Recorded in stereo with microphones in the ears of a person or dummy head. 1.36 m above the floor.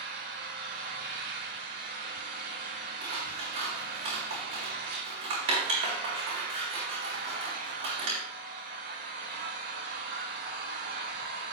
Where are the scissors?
40° right (ahead or behind), 3.5 m.